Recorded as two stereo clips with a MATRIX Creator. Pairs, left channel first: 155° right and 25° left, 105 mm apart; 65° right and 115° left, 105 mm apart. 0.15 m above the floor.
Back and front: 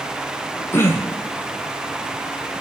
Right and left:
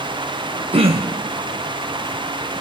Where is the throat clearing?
135° left, 1.8 m.